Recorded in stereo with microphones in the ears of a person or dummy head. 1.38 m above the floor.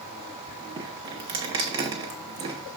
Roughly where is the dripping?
Right.